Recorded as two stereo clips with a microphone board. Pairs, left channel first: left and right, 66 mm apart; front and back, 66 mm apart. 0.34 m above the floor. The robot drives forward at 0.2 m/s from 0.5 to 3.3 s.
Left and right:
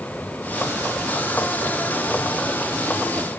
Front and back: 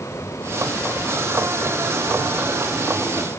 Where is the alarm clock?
No alarm clock in this recording.